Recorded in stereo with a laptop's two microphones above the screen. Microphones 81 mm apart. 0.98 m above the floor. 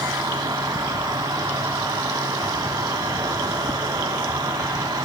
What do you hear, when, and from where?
0.0 s an insect: 50° right (ahead or behind), 1.4 m